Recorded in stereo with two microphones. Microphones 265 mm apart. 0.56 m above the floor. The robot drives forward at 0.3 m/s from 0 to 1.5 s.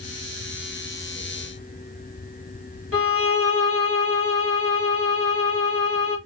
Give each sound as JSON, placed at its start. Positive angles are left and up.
{"t": 2.9, "sound": "a violin", "side_deg": 55, "distance_m": 1.8}